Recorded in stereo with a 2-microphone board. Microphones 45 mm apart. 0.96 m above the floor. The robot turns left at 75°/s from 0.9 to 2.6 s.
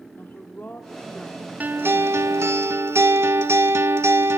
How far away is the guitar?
About 1.4 m.